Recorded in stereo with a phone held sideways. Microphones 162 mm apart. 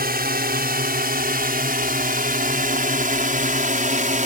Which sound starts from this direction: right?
A drone, at 0.0 s.